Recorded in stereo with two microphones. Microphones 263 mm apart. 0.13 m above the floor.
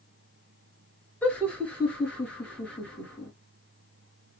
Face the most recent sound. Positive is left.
turn(degrees=5)  # may be behind; listen again after turning